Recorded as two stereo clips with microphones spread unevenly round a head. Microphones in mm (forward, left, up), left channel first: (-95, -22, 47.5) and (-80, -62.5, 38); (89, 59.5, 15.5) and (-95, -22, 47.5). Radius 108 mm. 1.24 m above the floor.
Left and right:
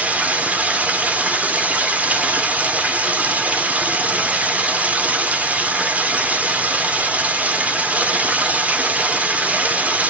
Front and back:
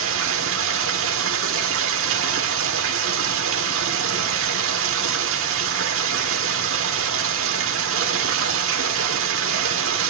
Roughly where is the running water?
Behind right.